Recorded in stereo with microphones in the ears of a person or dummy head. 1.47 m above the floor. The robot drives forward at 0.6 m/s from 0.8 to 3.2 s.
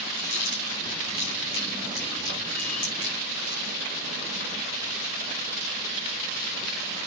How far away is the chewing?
About 5.5 m.